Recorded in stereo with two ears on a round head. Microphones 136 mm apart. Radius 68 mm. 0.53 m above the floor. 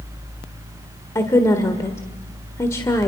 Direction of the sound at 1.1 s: 20° left (ahead or behind).